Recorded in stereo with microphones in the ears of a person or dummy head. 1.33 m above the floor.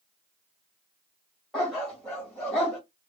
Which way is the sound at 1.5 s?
5° left (ahead or behind).